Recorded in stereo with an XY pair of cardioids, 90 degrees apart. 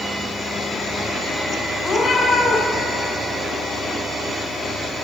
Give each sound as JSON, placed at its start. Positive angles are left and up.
{"t": 1.8, "sound": "a cat meowing", "azimuth_deg": 45, "distance_m": 4.5}